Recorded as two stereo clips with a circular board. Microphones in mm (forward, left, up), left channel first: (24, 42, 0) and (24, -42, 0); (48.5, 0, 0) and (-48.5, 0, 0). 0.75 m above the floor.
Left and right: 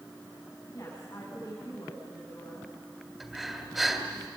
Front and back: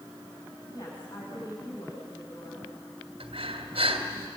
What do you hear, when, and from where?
0.7 s a woman speaking: 35° left, 7 m
3.2 s breathing: 175° right, 2.5 m